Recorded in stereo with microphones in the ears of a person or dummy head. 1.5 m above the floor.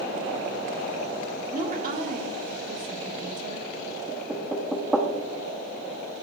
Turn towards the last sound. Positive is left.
turn(degrees=-5)  # may be behind; listen again after turning